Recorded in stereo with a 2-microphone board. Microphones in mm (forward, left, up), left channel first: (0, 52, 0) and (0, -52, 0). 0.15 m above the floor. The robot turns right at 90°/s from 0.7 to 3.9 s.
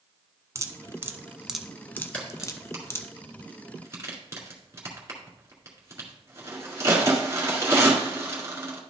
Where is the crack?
10° left (ahead or behind), 2.0 m; by 8.8 s 25° right (ahead or behind), 2.0 m.